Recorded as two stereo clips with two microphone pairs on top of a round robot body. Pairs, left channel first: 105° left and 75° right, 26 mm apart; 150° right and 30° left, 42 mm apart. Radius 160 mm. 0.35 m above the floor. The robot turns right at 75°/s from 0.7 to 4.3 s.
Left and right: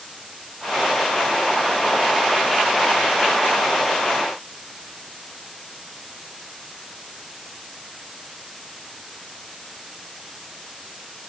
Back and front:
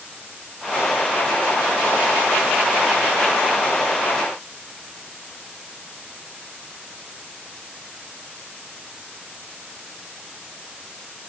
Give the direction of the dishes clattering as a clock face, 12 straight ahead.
I don't hear dishes clattering.